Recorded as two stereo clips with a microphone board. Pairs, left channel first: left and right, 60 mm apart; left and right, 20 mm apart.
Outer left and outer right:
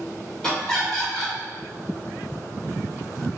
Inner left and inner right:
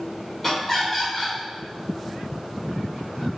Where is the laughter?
10° left (ahead or behind), 1.8 m.